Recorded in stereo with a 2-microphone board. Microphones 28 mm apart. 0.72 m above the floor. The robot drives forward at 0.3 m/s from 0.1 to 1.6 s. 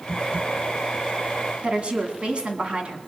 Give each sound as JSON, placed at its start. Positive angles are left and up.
{"t": 1.6, "sound": "a woman speaking", "side_deg": -40, "distance_m": 1.8}